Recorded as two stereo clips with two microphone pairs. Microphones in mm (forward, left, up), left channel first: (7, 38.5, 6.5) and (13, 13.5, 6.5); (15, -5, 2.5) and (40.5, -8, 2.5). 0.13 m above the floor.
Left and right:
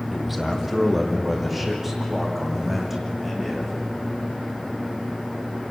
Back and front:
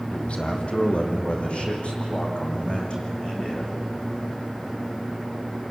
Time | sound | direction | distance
0.1 | a man speaking | 165° right | 4 m